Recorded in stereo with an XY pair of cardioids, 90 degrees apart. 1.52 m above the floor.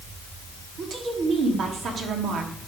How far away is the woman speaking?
About 3 m.